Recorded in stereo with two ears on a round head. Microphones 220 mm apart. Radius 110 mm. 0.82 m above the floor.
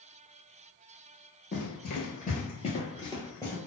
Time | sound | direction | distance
1.5 | running footsteps | 45° left (ahead or behind) | 1.1 m